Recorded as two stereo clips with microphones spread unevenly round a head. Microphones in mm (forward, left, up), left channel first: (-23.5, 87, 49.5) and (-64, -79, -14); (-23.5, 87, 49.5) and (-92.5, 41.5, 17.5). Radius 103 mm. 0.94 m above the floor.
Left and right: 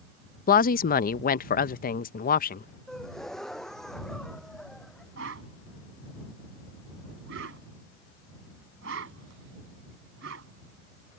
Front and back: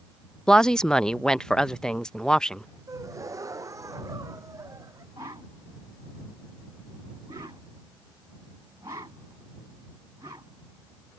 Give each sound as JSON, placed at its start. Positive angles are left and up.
{"t": 0.5, "sound": "a woman speaking", "azimuth_deg": 125}
{"t": 2.9, "sound": "a gasp", "azimuth_deg": 165}
{"t": 5.2, "sound": "a whoosh", "azimuth_deg": -75}